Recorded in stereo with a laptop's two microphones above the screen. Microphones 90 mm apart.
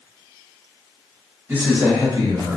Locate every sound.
1.5 s a man speaking: 25° right (ahead or behind), 1.1 m; by 2.6 s 55° right (ahead or behind), 0.9 m